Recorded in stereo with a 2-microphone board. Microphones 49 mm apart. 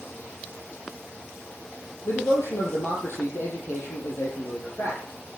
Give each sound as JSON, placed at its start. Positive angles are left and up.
{"t": 2.0, "sound": "a man speaking", "side_deg": 70, "distance_m": 6.5}